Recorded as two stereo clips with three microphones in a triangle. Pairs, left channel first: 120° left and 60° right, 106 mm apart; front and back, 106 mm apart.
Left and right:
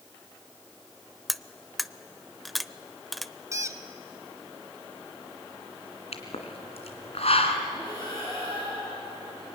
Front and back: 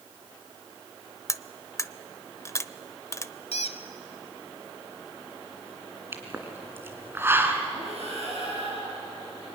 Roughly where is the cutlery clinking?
Ahead left.